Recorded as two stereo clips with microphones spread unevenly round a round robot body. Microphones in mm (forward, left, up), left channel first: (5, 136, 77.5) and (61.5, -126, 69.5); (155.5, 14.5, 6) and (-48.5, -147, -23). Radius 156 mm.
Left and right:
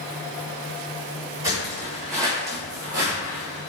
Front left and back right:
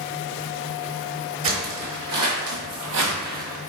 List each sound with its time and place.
1.4 s footsteps: 160° right, 1.7 m; by 3.7 s 150° right, 0.8 m